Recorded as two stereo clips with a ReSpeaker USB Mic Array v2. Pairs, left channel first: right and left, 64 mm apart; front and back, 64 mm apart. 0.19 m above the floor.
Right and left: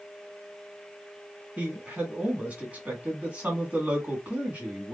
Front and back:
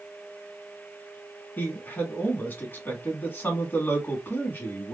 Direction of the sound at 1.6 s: 35° left.